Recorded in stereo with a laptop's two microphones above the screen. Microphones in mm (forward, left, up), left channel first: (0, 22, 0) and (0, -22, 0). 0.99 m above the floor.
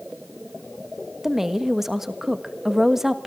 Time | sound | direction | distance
1.2 | a woman speaking | 10° right (ahead or behind) | 1.4 m